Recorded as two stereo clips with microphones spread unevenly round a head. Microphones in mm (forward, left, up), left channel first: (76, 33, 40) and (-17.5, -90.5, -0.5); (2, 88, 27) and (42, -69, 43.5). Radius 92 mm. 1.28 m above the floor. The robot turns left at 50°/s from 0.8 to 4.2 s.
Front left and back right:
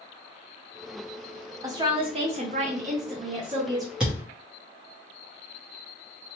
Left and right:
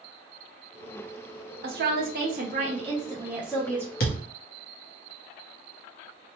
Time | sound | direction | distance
1.6 | a woman speaking | 70° right | 0.6 m
4.0 | a thud | 135° left | 0.8 m